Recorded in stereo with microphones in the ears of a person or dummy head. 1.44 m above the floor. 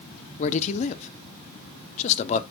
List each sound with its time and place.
0.4 s a man speaking: 40° left (ahead or behind), 0.8 m